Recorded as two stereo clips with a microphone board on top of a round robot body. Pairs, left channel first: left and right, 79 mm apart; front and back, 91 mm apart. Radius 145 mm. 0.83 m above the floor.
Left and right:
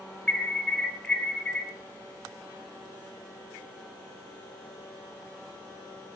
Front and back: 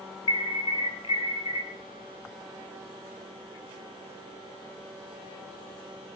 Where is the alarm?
10° left, 4 m.